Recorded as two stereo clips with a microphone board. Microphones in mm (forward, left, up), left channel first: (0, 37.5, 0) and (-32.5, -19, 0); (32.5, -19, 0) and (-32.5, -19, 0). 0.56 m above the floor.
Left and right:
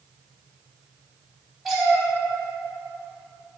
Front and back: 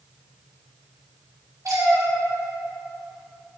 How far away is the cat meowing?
About 1.9 m.